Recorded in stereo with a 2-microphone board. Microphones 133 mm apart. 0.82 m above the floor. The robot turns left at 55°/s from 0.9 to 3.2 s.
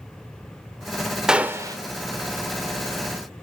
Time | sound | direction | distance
1.3 | a gunshot | 5° right (ahead or behind) | 0.8 m